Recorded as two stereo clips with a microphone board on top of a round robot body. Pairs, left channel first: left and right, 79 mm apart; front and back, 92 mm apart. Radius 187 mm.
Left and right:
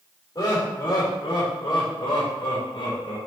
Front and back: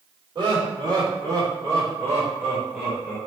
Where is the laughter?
140° left, 3.5 m; by 3.2 s 105° left, 4 m.